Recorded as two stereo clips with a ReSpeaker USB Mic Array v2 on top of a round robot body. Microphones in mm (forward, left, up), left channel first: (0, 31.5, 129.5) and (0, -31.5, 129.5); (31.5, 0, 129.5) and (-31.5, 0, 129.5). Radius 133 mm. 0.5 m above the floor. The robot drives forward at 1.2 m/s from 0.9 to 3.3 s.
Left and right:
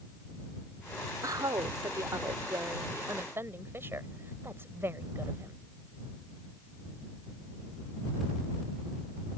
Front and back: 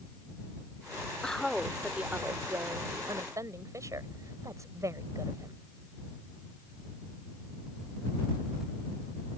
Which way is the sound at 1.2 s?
75° right.